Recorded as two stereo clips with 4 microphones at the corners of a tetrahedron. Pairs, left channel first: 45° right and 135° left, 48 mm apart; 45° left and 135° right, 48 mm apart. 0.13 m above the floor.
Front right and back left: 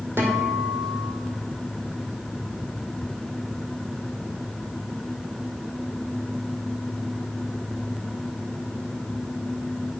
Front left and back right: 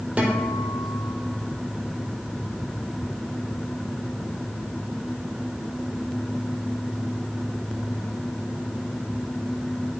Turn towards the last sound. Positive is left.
turn(degrees=165)